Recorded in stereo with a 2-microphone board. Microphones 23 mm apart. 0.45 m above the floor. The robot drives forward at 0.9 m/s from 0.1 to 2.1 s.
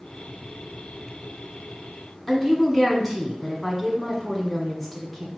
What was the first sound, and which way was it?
A woman speaking, 10° left (ahead or behind).